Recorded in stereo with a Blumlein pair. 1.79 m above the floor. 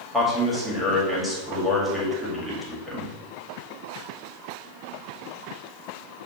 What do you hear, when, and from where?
0.1 s a man speaking: straight ahead, 1.6 m